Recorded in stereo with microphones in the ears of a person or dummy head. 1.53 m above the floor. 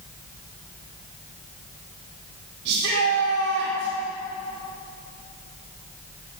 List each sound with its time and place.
2.6 s a shout: 70° right (ahead or behind), 3.5 m